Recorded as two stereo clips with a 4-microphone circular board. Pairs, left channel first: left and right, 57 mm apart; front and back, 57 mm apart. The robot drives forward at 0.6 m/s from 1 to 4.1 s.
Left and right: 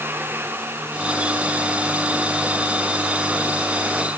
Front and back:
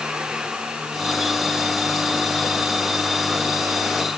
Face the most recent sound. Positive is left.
No sound to turn to.